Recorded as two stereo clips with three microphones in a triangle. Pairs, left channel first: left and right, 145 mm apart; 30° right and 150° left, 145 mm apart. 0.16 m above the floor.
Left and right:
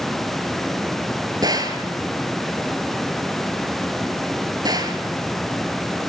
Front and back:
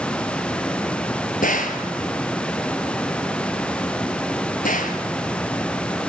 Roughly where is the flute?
I don't hear a flute.